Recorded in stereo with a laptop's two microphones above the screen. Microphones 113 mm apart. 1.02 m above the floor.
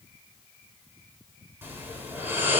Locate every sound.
1.6 s snoring: 20° right (ahead or behind), 4 m